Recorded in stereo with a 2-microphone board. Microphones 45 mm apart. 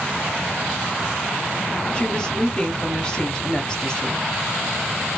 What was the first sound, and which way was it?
A woman speaking, 15° left (ahead or behind).